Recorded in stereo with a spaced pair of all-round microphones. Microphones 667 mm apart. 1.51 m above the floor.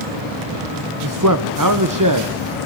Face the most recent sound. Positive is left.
turn(degrees=-30)  # may be behind; listen again after turning